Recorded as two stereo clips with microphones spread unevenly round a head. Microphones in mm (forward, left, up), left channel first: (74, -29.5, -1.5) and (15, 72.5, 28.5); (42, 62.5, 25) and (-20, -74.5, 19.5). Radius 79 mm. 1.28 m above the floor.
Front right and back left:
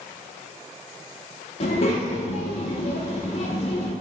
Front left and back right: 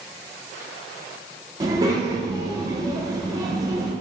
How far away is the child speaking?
About 0.6 m.